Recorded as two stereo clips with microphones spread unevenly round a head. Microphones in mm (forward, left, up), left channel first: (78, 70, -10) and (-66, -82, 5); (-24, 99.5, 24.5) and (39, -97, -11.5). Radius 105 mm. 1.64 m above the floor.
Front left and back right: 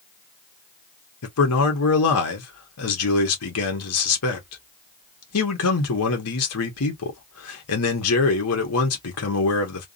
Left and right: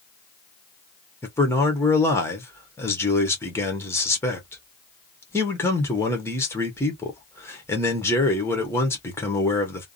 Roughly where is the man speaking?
Ahead left.